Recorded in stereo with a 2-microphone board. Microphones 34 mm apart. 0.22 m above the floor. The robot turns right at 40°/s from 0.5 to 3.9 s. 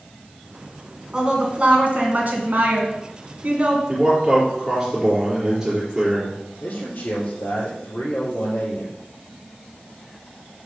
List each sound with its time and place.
1.1 s a woman speaking: 155° right, 2.0 m; by 3.8 s 45° right, 2.0 m
3.9 s a man speaking: 10° right (ahead or behind), 4 m
6.6 s a man speaking: 70° left (ahead or behind), 4 m